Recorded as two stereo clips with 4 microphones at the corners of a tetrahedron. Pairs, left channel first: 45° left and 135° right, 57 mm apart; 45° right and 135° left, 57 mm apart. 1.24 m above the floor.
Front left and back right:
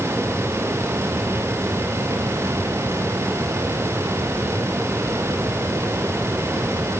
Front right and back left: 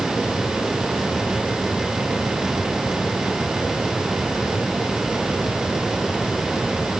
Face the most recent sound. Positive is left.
No sound to turn to.